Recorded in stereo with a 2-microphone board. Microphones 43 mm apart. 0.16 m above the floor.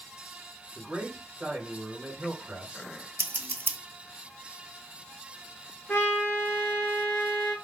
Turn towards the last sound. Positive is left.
turn(degrees=55)  # may be behind; listen again after turning